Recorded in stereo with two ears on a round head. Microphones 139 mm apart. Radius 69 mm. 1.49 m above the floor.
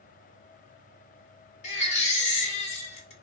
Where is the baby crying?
45° left (ahead or behind), 1.4 m.